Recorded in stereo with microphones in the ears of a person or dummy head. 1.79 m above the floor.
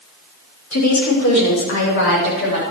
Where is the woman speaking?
80° left, 5.5 m; by 2.6 s 60° left (ahead or behind), 7 m.